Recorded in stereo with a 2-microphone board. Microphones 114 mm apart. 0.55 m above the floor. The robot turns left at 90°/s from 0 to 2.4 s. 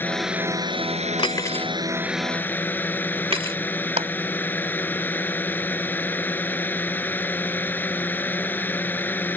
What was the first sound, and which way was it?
A drone, 20° left.